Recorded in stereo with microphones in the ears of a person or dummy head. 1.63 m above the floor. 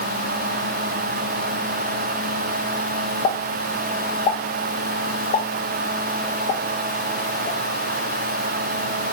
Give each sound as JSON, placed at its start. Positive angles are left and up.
{"t": 3.2, "sound": "a pop", "side_deg": 40, "distance_m": 1.3}